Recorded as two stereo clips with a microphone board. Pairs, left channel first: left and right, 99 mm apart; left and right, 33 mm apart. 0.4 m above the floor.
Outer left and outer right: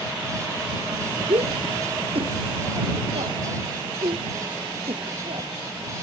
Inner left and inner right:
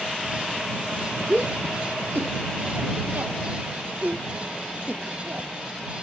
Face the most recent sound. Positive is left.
turn(degrees=-75)  # may be behind; listen again after turning